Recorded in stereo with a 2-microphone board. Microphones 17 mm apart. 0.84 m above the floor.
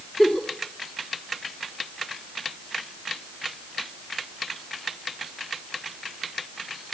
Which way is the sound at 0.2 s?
5° left (ahead or behind).